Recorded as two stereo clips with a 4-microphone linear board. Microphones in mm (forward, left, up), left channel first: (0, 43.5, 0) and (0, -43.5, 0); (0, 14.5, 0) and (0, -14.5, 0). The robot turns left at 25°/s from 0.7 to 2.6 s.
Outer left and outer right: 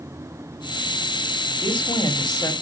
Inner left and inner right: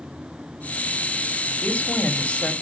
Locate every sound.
1.6 s a woman speaking: 75° left (ahead or behind), 1.8 m; by 2.5 s 55° left (ahead or behind), 1.8 m